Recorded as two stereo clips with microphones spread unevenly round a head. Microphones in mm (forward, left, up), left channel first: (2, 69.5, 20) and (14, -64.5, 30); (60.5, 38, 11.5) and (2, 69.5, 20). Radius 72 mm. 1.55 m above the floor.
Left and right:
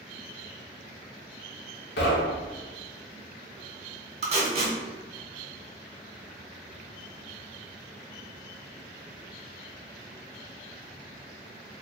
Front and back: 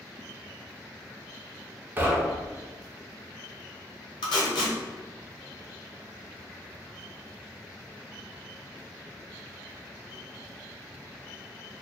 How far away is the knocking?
About 0.7 m.